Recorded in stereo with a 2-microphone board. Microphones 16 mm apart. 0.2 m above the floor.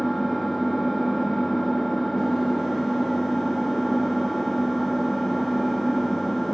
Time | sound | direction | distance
0.0 | an engine running | 5° left (ahead or behind) | 2 m